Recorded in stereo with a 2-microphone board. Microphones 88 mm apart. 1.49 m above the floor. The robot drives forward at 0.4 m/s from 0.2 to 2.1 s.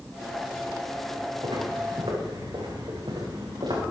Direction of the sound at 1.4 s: 80° right.